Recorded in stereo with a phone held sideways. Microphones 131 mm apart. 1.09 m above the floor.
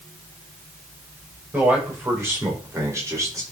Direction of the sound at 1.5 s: 15° right (ahead or behind).